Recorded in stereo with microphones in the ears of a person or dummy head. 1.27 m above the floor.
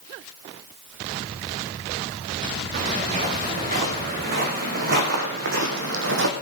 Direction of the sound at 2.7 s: 45° right (ahead or behind).